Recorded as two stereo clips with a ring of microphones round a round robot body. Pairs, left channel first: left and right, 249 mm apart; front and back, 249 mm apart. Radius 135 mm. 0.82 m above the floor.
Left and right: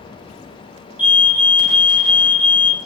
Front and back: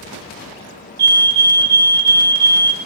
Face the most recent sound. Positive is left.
turn(degrees=-170)